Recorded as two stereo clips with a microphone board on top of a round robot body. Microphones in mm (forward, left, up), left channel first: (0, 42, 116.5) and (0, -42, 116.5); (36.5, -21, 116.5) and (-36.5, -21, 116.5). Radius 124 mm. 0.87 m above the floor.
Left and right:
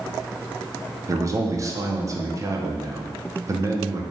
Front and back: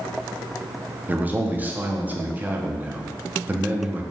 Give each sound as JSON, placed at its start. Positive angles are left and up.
{"t": 1.1, "sound": "a man speaking", "azimuth_deg": -120, "distance_m": 0.7}